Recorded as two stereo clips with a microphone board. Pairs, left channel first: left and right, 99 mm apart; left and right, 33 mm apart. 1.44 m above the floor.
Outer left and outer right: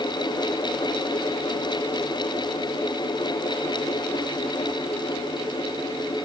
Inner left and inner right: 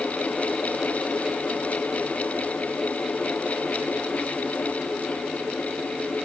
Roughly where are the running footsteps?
I don't hear running footsteps.